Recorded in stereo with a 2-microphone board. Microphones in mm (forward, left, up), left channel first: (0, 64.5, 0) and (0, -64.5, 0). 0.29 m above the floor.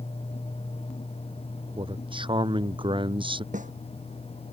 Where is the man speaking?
40° right (ahead or behind).